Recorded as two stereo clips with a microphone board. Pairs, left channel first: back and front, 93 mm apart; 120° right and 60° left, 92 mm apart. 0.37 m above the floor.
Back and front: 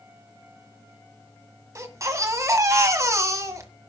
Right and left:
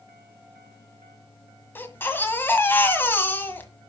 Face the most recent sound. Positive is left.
turn(degrees=-55)